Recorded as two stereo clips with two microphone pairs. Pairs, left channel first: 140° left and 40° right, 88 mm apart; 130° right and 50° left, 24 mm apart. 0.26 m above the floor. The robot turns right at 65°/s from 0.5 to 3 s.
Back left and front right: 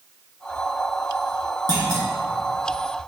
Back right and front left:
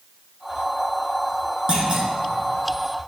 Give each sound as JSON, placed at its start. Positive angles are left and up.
{"t": 1.7, "sound": "a clunk", "azimuth_deg": 0, "distance_m": 2.0}